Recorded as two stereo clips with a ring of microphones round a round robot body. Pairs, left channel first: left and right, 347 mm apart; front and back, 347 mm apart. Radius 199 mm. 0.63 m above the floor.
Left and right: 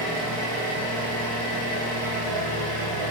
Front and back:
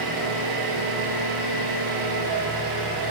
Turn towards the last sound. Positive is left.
turn(degrees=-145)